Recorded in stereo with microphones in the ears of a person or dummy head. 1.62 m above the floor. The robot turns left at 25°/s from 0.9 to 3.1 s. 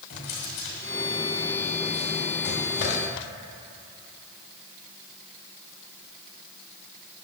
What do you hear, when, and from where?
0.1 s a drawer: 40° left (ahead or behind), 1.8 m; by 3.0 s 50° left (ahead or behind), 1.8 m